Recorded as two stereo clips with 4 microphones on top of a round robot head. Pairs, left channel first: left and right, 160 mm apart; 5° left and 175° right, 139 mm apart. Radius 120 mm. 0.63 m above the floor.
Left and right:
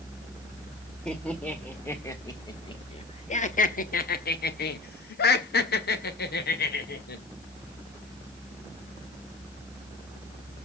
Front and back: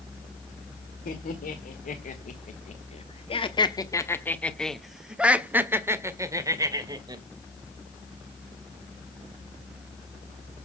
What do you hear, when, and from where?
1.1 s laughter: 5° left, 2.0 m; by 7.2 s 125° left, 2.5 m